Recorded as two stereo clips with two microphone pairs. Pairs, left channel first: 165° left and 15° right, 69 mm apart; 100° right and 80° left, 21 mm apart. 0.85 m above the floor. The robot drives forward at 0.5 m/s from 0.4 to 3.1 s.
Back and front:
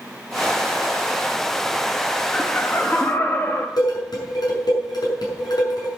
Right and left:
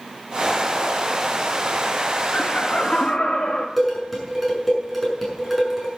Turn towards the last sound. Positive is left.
turn(degrees=165)